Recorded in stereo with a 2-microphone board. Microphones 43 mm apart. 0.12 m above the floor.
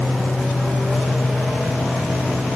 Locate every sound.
Only background noise.